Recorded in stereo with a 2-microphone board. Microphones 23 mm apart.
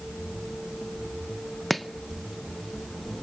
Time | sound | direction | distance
1.7 | chopping | 10° left (ahead or behind) | 0.8 m